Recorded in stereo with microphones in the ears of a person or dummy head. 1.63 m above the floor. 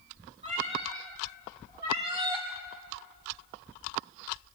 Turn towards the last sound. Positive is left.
turn(degrees=-20)  # may be behind; listen again after turning